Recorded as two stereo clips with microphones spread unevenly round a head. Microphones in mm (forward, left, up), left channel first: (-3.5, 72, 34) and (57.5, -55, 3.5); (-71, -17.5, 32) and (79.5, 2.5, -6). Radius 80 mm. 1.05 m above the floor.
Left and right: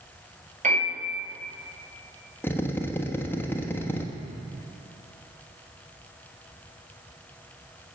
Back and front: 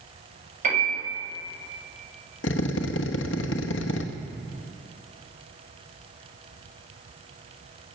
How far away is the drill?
About 1.1 m.